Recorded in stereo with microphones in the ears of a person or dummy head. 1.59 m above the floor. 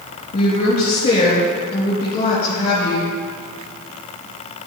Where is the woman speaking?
25° left (ahead or behind), 3 m.